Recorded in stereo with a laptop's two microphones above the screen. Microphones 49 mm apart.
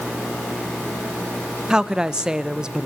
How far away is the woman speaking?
About 0.7 m.